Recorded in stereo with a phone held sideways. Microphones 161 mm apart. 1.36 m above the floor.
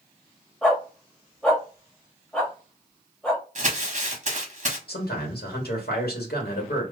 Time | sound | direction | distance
0.6 | a dog barking | 5° left (ahead or behind) | 1.0 m
3.5 | crumpling | 45° right (ahead or behind) | 1.1 m
4.9 | a man speaking | 80° left | 1.6 m